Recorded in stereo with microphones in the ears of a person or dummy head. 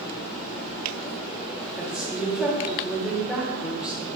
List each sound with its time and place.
1.8 s a woman speaking: 5° right (ahead or behind), 1.0 m